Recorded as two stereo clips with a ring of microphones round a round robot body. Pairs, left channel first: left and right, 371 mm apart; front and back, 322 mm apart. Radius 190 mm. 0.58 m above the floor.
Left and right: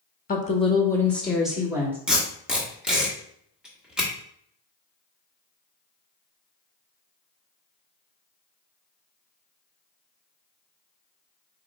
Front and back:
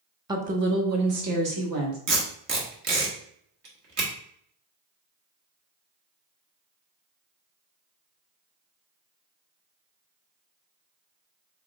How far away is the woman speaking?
About 0.7 m.